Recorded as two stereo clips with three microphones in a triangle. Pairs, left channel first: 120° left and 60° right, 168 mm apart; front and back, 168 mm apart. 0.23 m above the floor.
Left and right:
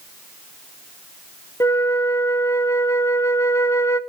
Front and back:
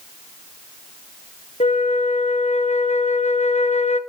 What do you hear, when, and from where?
1.6 s a flute: 45° left, 0.8 m